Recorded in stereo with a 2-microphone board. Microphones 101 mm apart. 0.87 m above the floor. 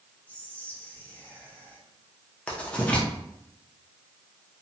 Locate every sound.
0.3 s whispering: 15° left (ahead or behind), 0.8 m
2.5 s writing: 10° left (ahead or behind), 0.6 m